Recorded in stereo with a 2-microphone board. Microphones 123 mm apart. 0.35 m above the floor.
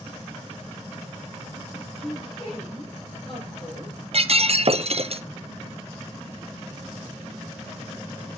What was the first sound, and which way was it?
A woman speaking, 45° left (ahead or behind).